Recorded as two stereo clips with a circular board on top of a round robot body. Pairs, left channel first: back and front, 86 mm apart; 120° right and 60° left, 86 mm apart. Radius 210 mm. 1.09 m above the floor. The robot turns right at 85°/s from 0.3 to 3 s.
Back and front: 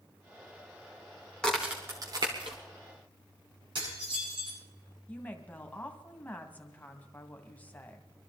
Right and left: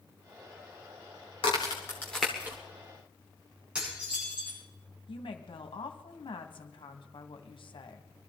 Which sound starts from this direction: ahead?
Dishes clattering, at 3.8 s.